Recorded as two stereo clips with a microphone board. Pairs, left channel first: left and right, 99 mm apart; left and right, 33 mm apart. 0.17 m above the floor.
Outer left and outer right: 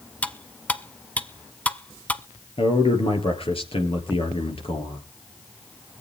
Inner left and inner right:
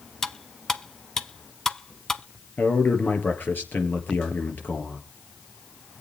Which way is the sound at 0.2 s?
15° left (ahead or behind).